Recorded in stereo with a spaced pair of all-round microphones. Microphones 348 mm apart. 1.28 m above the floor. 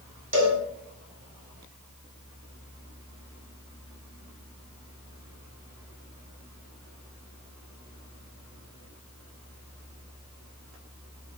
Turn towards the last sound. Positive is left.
turn(degrees=-60)  # may be behind; listen again after turning